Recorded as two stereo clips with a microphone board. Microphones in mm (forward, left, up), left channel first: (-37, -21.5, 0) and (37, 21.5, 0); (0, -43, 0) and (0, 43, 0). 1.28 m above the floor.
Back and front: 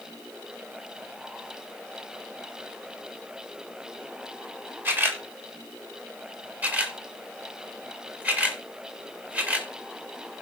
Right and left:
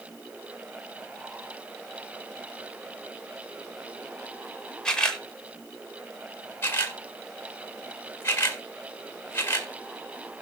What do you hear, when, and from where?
4.8 s a camera shutter: 15° right, 1.2 m
6.6 s a camera shutter: 35° right, 1.5 m